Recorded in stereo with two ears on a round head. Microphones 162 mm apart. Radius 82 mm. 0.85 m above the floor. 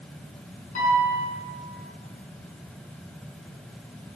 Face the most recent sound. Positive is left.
turn(degrees=45)  # may be behind; listen again after turning